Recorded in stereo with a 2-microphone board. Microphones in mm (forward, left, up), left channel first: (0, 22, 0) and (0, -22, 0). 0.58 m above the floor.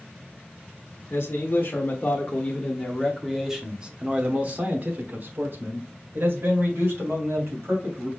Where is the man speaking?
50° left (ahead or behind), 1.4 m; by 8.1 s 65° right (ahead or behind), 2.5 m.